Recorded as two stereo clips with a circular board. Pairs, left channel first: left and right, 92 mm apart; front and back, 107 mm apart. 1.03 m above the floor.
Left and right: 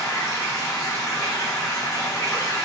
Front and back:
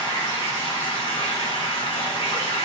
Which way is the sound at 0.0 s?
35° left.